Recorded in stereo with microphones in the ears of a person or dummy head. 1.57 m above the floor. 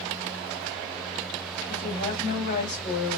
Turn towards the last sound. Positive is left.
turn(degrees=35)  # may be behind; listen again after turning